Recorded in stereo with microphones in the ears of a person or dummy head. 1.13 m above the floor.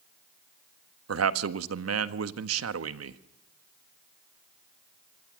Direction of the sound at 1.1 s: 85° right.